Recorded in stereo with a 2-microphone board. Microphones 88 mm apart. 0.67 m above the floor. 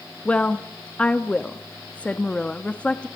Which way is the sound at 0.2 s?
15° left (ahead or behind).